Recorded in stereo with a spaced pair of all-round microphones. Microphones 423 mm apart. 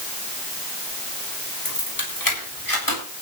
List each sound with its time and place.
1.6 s keys jangling: 55° left (ahead or behind), 6 m; by 3.0 s 60° left (ahead or behind), 8 m